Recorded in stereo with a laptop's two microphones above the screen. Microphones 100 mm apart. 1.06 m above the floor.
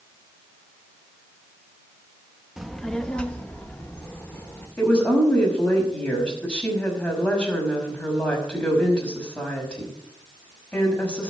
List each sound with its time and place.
2.6 s a child speaking: 5° right (ahead or behind), 0.9 m; by 4.7 s 20° left (ahead or behind), 3 m
4.8 s a woman speaking: 10° left (ahead or behind), 6 m